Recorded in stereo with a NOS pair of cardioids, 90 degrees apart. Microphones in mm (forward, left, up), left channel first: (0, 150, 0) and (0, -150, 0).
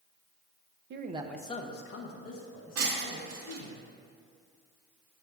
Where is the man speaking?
40° right, 0.6 m; by 3.8 s 70° left, 2.5 m.